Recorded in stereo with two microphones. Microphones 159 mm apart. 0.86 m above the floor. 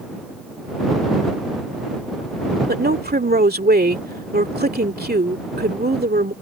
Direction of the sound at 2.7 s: 80° right.